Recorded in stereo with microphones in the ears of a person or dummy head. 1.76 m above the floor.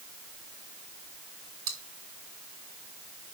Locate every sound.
1.7 s chewing: 20° right (ahead or behind), 2.5 m